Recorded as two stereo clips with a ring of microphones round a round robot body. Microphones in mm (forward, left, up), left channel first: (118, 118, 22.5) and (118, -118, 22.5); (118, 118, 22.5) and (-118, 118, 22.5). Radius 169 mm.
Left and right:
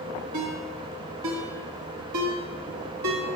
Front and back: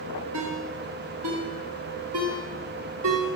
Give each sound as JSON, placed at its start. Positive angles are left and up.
{"t": 0.3, "sound": "a ringtone", "azimuth_deg": -125, "distance_m": 0.8}